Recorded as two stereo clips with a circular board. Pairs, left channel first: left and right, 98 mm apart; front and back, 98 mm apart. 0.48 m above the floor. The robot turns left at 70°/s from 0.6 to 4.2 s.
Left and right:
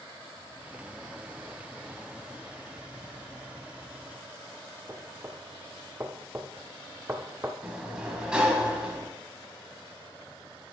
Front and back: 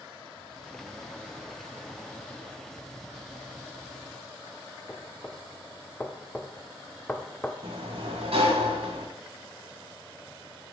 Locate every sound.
4.9 s knocking: 60° right, 0.7 m
7.6 s a sliding door: 170° right, 1.4 m